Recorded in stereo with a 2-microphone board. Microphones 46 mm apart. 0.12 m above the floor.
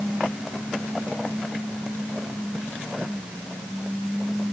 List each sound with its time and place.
Only background noise.